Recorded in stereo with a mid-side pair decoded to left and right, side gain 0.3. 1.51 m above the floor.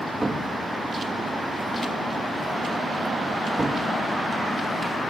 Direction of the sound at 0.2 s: 30° right.